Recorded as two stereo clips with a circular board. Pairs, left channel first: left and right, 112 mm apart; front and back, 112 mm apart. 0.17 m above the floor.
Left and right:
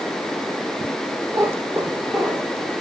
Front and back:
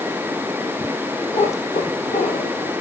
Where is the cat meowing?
25° right, 1.6 m; by 2.7 s 5° right, 3.5 m.